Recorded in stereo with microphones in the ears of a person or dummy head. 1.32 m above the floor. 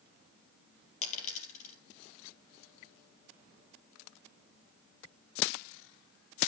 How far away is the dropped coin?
About 4 m.